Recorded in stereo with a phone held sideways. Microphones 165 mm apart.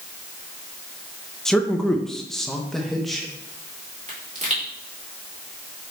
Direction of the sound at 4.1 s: 45° right (ahead or behind).